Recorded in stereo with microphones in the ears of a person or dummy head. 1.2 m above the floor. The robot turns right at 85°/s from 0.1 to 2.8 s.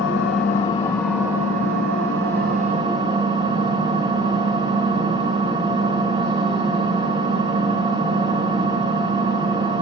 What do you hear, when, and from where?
0.0 s an engine running: 105° left, 2.5 m; by 9.8 s 25° right, 2.5 m